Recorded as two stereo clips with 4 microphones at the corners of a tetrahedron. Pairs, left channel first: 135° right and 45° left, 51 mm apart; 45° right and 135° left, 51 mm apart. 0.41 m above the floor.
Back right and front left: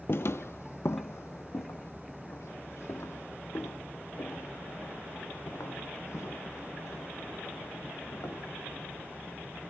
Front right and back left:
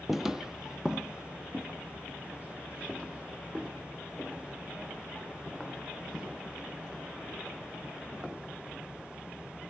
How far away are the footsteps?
About 0.5 m.